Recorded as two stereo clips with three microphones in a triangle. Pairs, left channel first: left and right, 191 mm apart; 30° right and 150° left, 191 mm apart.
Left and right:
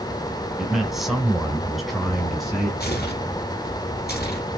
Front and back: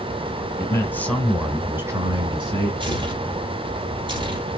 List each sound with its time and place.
0.6 s a man speaking: 5° right, 1.1 m; by 2.7 s straight behind, 1.3 m
2.8 s tearing paper: 95° left, 2.0 m